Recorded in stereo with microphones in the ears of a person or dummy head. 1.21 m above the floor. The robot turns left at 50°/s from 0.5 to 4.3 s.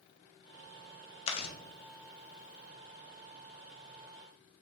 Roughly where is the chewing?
Left.